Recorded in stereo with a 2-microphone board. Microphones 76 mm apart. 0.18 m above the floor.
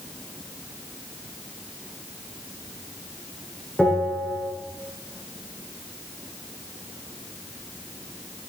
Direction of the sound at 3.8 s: 5° left (ahead or behind).